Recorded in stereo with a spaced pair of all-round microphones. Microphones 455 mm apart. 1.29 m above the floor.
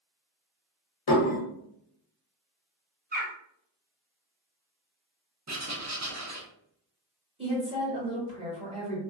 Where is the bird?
20° right (ahead or behind), 0.8 m.